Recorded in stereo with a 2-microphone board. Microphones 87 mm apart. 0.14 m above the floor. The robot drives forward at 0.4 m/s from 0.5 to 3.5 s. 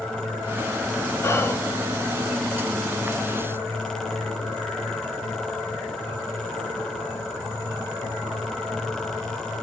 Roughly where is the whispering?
Left.